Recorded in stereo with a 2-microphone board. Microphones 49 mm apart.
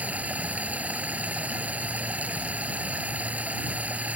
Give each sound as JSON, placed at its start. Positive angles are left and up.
{"t": 0.0, "sound": "running water", "side_deg": -35}